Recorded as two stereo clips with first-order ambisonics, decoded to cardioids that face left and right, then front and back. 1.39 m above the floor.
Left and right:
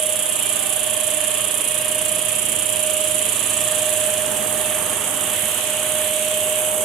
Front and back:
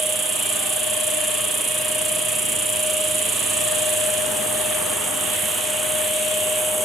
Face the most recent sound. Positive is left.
turn(degrees=-105)